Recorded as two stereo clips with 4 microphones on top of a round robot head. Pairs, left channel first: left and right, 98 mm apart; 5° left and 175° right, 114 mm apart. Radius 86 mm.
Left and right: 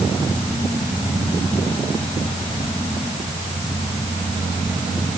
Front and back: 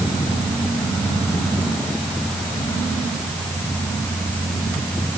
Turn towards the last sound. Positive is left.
No sound to turn to.